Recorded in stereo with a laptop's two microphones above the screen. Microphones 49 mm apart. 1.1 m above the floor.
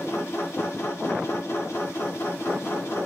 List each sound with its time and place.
0.0 s a machine running: 70° left (ahead or behind), 1.0 m